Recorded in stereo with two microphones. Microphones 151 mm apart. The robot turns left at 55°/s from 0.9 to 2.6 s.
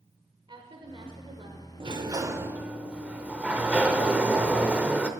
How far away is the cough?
No cough in this recording.